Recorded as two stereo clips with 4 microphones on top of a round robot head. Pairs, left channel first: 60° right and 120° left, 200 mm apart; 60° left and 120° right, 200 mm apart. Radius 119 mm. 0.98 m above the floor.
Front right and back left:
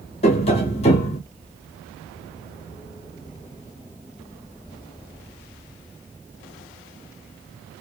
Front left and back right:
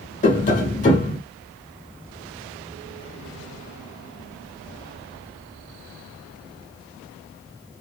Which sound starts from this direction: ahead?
Tapping, at 0.2 s.